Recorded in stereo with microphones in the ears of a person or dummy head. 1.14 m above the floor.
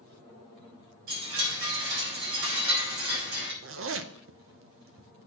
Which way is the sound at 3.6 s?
65° right (ahead or behind).